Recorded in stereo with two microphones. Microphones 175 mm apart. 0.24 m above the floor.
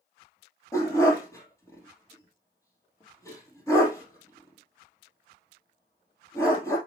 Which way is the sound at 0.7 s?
15° left (ahead or behind).